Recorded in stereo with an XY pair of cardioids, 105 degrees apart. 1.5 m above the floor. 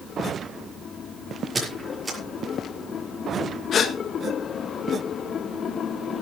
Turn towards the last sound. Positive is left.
turn(degrees=55)